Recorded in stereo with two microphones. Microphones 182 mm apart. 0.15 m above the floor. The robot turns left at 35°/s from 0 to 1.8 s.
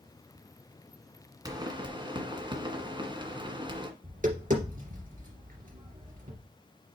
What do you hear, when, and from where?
1.4 s a pop: 20° right (ahead or behind), 1.8 m; by 3.9 s 25° right (ahead or behind), 1.8 m
4.0 s tapping: 45° right (ahead or behind), 3 m